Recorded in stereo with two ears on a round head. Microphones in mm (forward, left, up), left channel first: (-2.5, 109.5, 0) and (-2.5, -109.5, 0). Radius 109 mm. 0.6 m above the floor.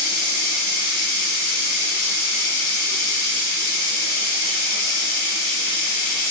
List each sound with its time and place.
0.0 s running water: 80° left, 1.2 m